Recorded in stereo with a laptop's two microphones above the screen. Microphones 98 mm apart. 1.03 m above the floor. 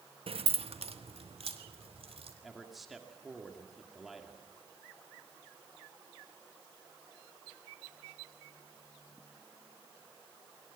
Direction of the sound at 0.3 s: 70° right (ahead or behind).